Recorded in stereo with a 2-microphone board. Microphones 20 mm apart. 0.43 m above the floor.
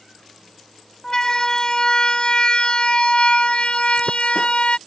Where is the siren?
25° left (ahead or behind); by 4.8 s 65° left (ahead or behind).